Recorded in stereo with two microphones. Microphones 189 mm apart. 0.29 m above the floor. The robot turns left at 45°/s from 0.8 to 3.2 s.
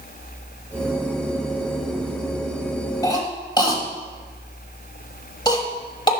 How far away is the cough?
About 1.1 m.